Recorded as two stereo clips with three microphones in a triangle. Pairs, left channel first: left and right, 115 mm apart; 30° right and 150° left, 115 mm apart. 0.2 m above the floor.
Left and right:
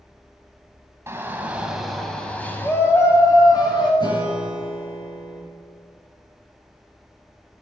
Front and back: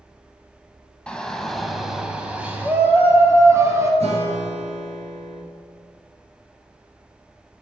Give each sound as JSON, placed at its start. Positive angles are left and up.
{"t": 1.1, "sound": "a shout", "azimuth_deg": -100, "distance_m": 1.4}
{"t": 4.0, "sound": "a guitar", "azimuth_deg": 135, "distance_m": 3.0}